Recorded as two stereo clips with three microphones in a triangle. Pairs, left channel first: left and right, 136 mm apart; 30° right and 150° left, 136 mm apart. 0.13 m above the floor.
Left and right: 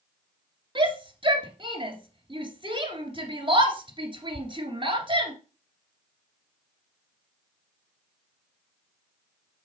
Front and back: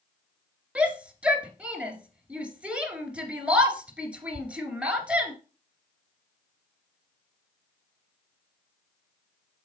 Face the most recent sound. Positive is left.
turn(degrees=-130)